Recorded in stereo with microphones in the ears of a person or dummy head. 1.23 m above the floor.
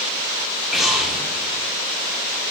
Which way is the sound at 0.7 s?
Centre (ahead or behind).